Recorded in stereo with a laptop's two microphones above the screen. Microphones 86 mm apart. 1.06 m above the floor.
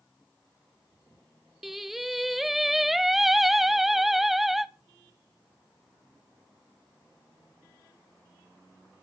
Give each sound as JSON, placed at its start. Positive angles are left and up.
{"t": 1.6, "sound": "singing", "side_deg": 0, "distance_m": 0.9}